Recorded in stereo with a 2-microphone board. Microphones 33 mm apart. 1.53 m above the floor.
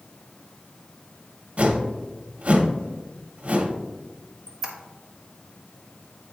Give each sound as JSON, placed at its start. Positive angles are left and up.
{"t": 1.6, "sound": "a whoosh", "side_deg": -45, "distance_m": 1.0}
{"t": 4.5, "sound": "a squeak", "side_deg": -15, "distance_m": 1.5}